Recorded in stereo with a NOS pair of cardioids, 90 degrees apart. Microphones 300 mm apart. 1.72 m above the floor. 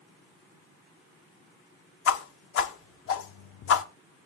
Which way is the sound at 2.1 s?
50° left.